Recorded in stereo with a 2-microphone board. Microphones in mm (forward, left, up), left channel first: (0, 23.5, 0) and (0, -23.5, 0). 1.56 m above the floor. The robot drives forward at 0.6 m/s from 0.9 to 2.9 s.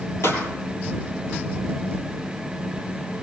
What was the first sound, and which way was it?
A pop, 70° left (ahead or behind).